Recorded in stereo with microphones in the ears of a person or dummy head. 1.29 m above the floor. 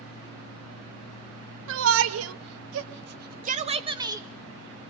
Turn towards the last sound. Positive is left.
turn(degrees=-15)  # may be behind; listen again after turning